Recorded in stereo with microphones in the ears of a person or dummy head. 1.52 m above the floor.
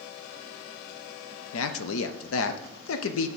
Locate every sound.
1.5 s a man speaking: 80° left, 0.6 m